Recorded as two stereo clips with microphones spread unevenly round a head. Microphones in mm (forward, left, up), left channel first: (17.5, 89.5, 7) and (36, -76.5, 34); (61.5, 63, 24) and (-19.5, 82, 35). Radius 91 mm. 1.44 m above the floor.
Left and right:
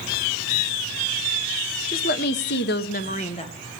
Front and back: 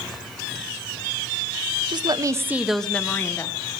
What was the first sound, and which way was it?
A woman speaking, 135° left.